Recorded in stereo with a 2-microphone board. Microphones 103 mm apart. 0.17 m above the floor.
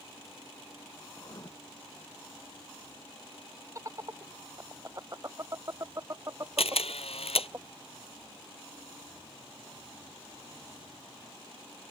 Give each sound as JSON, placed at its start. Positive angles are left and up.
{"t": 1.1, "sound": "writing", "side_deg": 40}
{"t": 3.8, "sound": "laughter", "side_deg": -35}
{"t": 6.6, "sound": "a camera shutter", "side_deg": 80}